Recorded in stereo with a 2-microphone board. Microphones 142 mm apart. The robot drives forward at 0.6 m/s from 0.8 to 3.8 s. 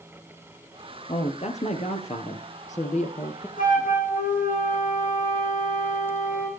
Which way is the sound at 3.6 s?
80° left.